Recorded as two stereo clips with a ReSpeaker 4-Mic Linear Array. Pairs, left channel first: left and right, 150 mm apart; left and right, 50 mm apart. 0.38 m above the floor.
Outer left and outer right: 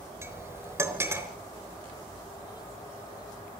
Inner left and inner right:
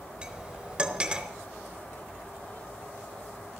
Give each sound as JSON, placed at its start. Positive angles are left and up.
{"t": 0.2, "sound": "cutlery clinking", "side_deg": -20, "distance_m": 3.5}